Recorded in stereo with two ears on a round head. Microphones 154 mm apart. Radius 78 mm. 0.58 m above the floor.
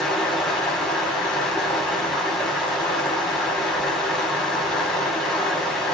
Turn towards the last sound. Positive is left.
turn(degrees=5)  # may be behind; listen again after turning